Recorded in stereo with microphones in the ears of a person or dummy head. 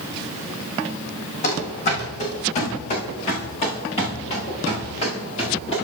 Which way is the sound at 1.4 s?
45° left (ahead or behind).